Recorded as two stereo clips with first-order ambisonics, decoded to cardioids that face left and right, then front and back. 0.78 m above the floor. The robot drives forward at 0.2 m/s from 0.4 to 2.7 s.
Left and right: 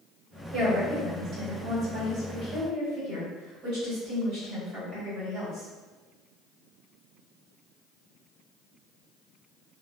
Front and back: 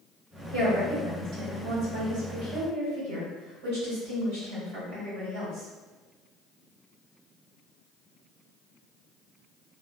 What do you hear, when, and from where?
0.5 s a woman speaking: 155° right, 2.0 m; by 5.7 s 160° right, 2.5 m